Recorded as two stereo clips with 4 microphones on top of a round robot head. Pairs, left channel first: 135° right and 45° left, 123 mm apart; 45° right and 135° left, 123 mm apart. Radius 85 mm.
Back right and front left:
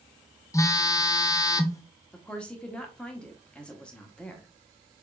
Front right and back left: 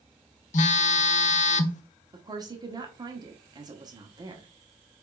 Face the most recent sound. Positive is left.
turn(degrees=150)